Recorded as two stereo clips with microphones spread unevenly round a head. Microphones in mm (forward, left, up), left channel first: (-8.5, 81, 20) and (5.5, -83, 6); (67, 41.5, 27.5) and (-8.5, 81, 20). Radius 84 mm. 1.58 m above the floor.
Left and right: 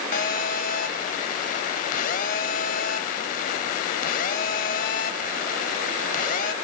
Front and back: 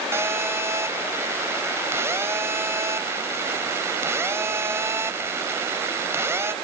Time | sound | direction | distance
0.1 | a phone buzzing | 95° left | 1.9 m